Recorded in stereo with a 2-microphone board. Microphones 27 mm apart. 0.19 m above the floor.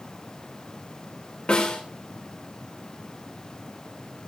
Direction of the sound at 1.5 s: 60° left (ahead or behind).